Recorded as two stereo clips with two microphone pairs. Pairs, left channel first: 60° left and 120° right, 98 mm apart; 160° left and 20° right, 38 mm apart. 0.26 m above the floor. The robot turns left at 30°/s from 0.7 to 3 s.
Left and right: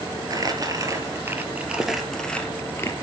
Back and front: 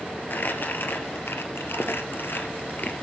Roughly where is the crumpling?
Behind.